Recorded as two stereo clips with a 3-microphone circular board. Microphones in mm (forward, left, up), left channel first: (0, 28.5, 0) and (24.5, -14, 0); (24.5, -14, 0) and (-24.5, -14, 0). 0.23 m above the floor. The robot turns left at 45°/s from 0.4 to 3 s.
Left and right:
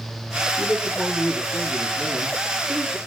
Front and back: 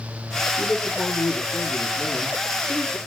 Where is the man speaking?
40° left, 4.5 m; by 3.0 s 70° right, 4.5 m.